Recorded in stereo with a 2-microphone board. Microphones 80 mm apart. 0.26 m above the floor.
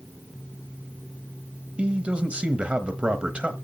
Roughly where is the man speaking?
Centre.